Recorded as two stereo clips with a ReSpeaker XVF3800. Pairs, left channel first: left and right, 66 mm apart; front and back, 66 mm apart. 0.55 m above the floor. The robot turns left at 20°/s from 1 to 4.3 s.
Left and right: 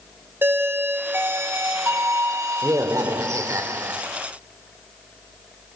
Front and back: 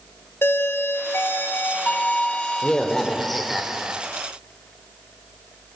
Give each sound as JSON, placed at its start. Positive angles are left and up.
{"t": 0.4, "sound": "a doorbell", "azimuth_deg": -45, "distance_m": 1.9}